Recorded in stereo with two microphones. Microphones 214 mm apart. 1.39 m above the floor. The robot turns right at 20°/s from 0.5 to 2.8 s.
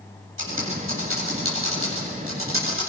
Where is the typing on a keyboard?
65° right (ahead or behind), 7.5 m; by 2.9 s 70° right (ahead or behind), 7.5 m.